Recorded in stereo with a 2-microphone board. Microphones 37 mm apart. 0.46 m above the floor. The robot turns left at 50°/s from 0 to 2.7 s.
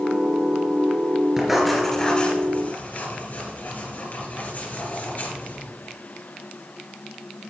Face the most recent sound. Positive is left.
turn(degrees=50)  # may be behind; listen again after turning